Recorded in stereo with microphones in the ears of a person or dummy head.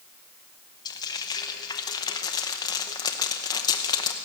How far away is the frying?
About 0.7 m.